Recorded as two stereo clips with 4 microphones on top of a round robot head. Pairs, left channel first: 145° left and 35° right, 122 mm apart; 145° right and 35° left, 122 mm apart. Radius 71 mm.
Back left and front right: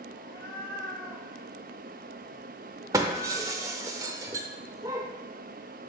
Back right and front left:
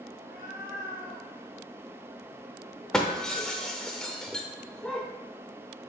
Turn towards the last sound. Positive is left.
turn(degrees=-65)